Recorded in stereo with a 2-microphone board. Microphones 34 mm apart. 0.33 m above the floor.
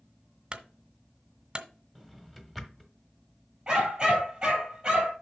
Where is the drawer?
5° left (ahead or behind), 1.1 m.